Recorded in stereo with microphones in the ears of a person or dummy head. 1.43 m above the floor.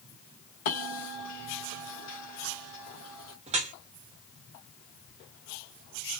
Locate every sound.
0.7 s a bell: 45° left (ahead or behind), 0.8 m
3.5 s dripping: 30° right (ahead or behind), 0.5 m